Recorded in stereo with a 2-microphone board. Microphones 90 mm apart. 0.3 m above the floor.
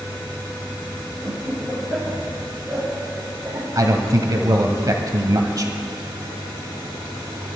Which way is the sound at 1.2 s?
Centre (ahead or behind).